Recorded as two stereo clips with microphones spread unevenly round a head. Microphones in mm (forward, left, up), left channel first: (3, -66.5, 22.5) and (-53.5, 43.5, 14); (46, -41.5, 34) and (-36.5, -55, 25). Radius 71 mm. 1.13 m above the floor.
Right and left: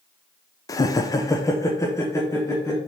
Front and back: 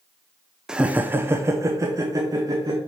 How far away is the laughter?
About 0.6 m.